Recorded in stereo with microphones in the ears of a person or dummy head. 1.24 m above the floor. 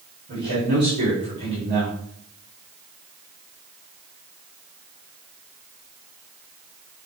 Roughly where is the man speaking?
Right.